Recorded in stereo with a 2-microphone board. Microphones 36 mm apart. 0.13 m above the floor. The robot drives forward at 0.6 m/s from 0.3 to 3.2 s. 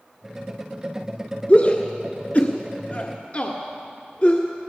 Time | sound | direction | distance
1.5 | a shout | 35° left (ahead or behind) | 1.7 m